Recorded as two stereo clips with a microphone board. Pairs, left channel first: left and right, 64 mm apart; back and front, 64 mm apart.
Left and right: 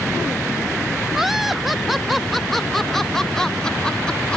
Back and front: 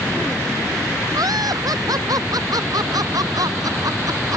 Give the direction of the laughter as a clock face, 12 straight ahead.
12 o'clock.